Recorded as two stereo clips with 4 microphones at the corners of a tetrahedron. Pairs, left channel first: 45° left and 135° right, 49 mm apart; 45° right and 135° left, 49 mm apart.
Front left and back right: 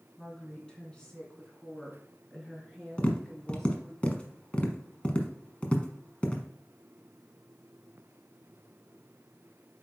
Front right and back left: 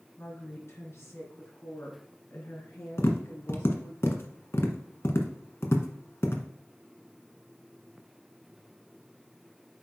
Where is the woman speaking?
25° right, 2.5 m; by 4.0 s 40° right, 5 m.